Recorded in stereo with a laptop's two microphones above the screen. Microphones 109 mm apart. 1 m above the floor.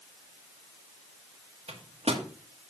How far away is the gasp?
No gasp in this recording.